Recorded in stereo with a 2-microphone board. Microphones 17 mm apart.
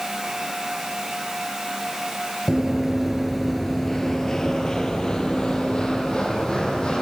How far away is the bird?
I don't hear a bird.